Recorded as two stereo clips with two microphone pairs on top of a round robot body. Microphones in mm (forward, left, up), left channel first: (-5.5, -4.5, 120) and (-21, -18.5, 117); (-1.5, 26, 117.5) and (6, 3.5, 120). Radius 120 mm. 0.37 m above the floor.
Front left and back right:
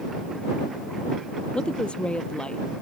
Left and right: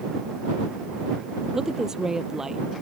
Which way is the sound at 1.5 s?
5° right.